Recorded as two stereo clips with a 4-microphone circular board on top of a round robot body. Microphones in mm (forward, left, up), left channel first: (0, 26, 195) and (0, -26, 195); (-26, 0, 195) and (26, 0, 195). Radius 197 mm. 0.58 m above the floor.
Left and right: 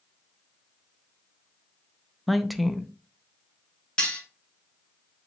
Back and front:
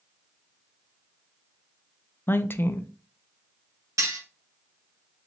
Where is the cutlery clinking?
15° left, 2 m.